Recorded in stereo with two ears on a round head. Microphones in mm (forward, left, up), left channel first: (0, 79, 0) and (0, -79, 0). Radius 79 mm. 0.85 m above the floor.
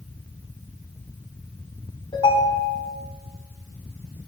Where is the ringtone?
30° left (ahead or behind), 4.5 m.